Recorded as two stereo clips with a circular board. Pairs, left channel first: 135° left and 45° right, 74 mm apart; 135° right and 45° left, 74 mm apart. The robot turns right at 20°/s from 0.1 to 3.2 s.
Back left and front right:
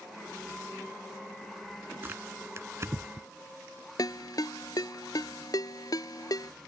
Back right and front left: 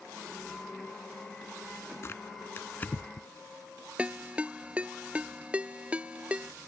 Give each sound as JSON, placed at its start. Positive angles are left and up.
{"t": 2.0, "sound": "tearing paper", "azimuth_deg": -95}
{"t": 4.0, "sound": "a ringtone", "azimuth_deg": 115}